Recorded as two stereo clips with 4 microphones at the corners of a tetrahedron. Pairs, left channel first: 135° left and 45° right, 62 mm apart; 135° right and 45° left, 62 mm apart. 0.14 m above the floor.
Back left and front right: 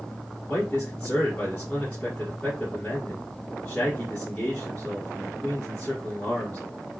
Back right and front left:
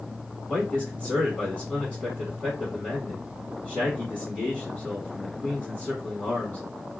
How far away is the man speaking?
About 1.4 m.